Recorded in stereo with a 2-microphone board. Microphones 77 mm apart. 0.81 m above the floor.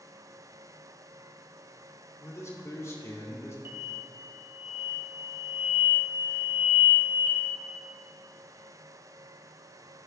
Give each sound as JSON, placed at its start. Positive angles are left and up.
{"t": 2.2, "sound": "a man speaking", "side_deg": 40, "distance_m": 2.5}
{"t": 3.6, "sound": "an explosion", "side_deg": -30, "distance_m": 1.7}